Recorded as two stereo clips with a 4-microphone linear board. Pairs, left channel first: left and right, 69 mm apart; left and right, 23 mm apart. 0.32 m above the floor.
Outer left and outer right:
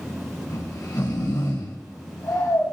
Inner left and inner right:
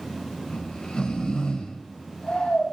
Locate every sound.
0.5 s snoring: 70° left (ahead or behind), 3 m